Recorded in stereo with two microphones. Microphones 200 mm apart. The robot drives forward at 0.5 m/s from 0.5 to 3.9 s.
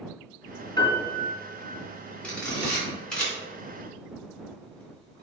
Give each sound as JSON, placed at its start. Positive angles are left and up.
{"t": 0.8, "sound": "a piano", "side_deg": 20, "distance_m": 2.0}
{"t": 2.2, "sound": "a camera shutter", "side_deg": 5, "distance_m": 3.0}